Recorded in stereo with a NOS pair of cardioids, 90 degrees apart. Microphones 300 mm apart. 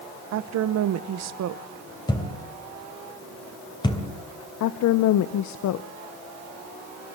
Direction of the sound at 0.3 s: 65° right.